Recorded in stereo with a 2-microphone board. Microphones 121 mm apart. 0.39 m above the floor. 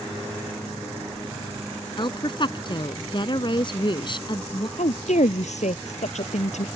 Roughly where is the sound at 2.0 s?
Left.